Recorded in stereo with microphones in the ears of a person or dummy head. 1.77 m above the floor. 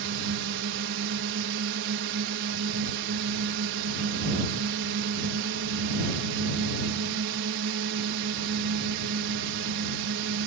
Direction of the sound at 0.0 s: 70° right (ahead or behind).